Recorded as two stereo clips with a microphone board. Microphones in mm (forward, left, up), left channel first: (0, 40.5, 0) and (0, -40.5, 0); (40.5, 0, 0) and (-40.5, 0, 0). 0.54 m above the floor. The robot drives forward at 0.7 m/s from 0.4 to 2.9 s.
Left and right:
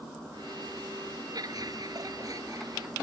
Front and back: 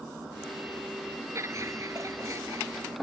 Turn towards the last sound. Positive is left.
turn(degrees=-130)